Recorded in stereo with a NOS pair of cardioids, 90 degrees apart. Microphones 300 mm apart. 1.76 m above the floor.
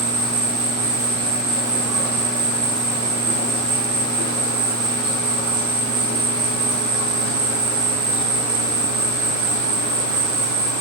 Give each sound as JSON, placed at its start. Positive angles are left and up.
{"t": 0.0, "sound": "an insect", "azimuth_deg": -55, "distance_m": 0.9}